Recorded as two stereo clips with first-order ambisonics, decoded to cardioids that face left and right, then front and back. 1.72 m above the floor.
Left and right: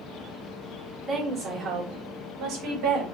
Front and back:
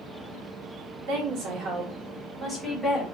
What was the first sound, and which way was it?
A woman speaking, 165° right.